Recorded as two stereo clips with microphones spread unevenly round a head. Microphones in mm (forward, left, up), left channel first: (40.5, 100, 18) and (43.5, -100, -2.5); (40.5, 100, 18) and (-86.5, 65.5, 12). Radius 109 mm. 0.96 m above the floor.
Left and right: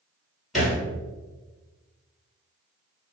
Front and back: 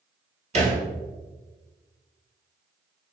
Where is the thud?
175° left, 1.6 m.